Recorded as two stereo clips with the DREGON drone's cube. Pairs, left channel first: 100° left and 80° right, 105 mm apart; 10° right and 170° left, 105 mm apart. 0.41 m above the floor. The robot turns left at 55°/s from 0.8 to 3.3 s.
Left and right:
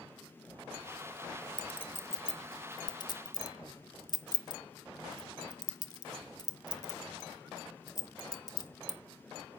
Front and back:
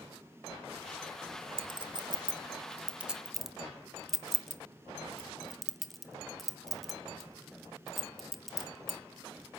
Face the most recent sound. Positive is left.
turn(degrees=80)